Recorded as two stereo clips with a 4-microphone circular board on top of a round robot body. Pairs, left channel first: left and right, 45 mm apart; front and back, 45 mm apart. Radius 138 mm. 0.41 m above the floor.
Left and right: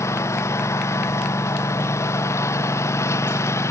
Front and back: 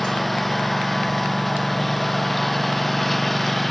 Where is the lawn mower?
85° left.